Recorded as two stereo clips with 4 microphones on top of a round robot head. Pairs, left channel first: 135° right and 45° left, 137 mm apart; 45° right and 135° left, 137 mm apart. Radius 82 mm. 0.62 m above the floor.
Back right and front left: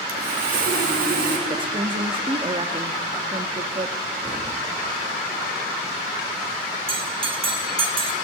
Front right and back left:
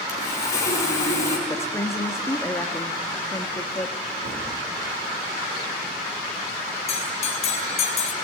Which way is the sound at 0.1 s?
25° left.